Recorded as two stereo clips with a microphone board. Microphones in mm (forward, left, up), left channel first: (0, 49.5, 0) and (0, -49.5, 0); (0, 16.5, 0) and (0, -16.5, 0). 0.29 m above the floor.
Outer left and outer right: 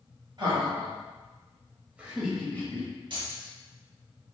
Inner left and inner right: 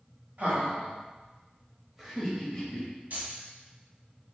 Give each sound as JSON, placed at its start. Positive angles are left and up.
{"t": 0.4, "sound": "laughter", "side_deg": -50, "distance_m": 1.8}
{"t": 3.1, "sound": "keys jangling", "side_deg": -55, "distance_m": 1.2}